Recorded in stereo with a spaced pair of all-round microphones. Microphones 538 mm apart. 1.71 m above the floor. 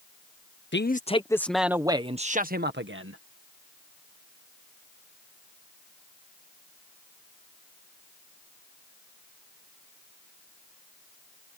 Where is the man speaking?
20° left (ahead or behind); by 3.2 s 25° right (ahead or behind).